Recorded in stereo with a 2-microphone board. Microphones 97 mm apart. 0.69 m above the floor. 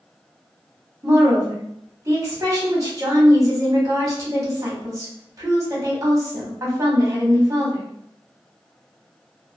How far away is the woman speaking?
About 1.0 m.